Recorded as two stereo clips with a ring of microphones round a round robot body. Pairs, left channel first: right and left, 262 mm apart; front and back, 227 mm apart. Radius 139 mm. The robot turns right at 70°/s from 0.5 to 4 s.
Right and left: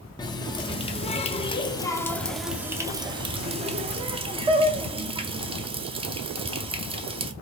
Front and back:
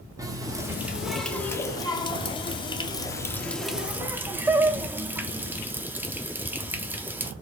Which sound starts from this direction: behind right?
A running tap, at 0.2 s.